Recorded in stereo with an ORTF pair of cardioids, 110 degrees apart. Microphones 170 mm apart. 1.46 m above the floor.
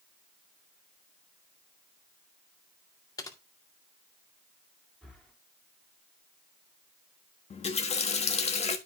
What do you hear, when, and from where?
3.2 s typing on a keyboard: 20° left, 2 m
5.0 s breathing: straight ahead, 3.5 m
7.5 s a running tap: 40° left, 1.6 m